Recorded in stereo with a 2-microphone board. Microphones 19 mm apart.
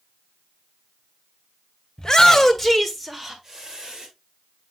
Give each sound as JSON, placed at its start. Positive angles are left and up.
{"t": 2.0, "sound": "a shout", "side_deg": 30, "distance_m": 1.8}